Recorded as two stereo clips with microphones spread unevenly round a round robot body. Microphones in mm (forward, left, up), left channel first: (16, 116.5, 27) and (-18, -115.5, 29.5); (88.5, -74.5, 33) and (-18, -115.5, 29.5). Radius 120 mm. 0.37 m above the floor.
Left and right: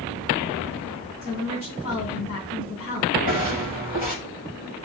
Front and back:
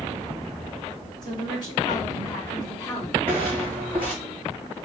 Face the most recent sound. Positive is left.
turn(degrees=140)